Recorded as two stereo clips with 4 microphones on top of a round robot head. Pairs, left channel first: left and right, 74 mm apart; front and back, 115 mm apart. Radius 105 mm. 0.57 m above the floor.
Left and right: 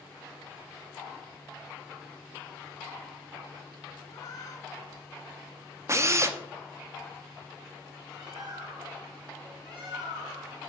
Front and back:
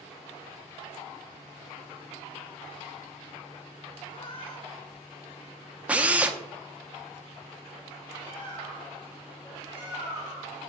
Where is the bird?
65° right, 5 m.